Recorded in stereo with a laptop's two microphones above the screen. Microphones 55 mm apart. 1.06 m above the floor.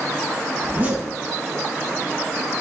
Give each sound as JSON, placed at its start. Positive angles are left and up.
{"t": 0.6, "sound": "a zipper", "side_deg": -35, "distance_m": 2.0}